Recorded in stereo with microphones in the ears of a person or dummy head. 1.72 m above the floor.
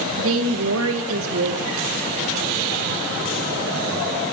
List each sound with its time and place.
0.2 s a woman speaking: 75° right (ahead or behind), 2 m